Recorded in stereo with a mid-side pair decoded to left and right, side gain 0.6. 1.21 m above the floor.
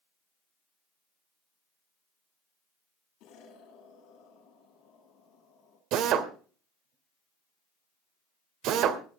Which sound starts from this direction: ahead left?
An explosion, at 3.2 s.